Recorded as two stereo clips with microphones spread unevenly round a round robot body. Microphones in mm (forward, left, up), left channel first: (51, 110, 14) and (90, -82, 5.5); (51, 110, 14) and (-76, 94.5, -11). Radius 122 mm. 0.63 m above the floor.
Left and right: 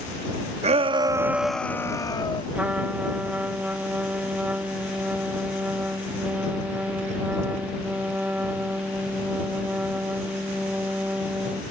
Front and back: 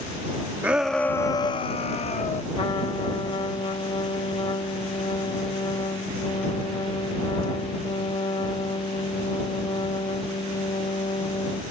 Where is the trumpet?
5° right.